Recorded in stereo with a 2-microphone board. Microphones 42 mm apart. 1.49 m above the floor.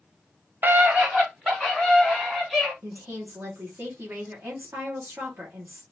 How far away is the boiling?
I don't hear boiling.